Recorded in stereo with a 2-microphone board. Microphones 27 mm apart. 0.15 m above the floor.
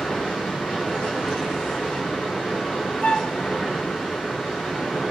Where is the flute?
60° left (ahead or behind), 1.0 m.